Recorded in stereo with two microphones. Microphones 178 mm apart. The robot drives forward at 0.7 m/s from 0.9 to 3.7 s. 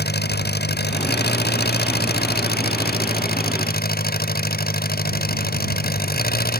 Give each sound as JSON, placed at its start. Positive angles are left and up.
{"t": 0.0, "sound": "an engine running", "side_deg": 65}